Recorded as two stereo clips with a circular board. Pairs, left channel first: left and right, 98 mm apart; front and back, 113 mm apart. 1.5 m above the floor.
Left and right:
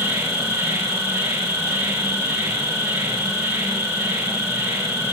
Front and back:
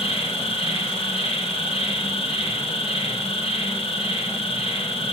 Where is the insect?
30° right, 5.5 m.